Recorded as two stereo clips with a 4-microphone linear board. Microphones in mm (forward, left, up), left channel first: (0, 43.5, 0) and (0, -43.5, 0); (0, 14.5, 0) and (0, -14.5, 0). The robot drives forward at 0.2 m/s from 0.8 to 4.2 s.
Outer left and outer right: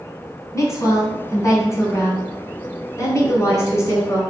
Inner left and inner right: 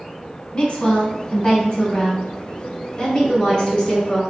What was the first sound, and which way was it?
A woman speaking, 35° left (ahead or behind).